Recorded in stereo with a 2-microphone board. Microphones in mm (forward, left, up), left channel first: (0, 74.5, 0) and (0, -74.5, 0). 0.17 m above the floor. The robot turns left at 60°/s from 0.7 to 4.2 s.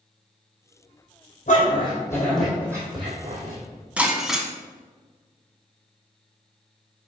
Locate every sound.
1.5 s a dog barking: 55° left (ahead or behind), 2.5 m; by 3.6 s 65° right (ahead or behind), 2.5 m
4.0 s breaking glass: 10° right (ahead or behind), 0.9 m; by 4.5 s centre (ahead or behind), 0.9 m